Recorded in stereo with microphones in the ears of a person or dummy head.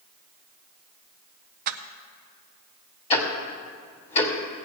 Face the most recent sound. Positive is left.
turn(degrees=35)  # may be behind; listen again after turning